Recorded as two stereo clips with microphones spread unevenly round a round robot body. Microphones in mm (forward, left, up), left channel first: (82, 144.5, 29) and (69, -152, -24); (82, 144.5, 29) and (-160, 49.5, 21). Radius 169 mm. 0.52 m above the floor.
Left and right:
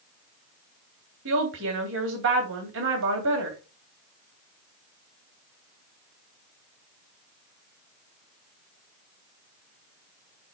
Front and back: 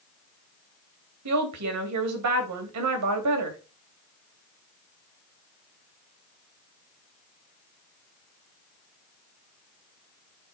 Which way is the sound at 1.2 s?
145° right.